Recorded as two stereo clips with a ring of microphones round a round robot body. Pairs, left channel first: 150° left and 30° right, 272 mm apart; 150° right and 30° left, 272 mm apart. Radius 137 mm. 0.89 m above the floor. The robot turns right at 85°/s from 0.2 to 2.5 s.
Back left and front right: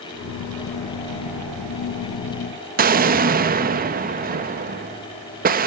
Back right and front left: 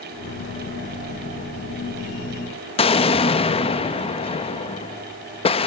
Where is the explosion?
85° right, 1.2 m.